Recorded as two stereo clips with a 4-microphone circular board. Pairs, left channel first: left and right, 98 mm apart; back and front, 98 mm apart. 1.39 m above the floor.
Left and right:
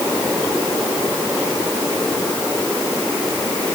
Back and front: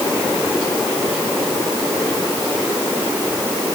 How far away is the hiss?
No hiss in this recording.